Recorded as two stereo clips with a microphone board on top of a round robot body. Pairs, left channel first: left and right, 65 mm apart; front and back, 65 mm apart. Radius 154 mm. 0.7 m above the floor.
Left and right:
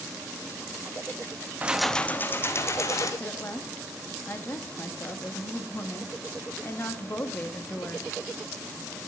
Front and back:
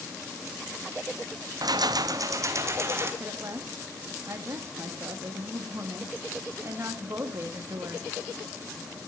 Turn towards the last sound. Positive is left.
turn(degrees=140)